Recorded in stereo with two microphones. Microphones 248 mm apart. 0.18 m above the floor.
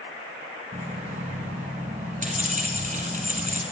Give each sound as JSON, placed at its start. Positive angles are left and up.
{"t": 0.7, "sound": "keys jangling", "side_deg": -30, "distance_m": 1.4}